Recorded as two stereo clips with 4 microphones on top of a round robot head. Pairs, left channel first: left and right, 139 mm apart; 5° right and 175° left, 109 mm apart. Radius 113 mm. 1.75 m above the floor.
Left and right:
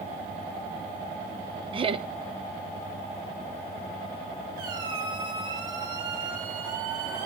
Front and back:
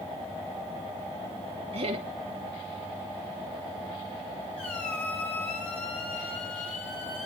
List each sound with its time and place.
1.7 s laughter: 140° right, 1.5 m
4.6 s a squeak: 50° right, 7.5 m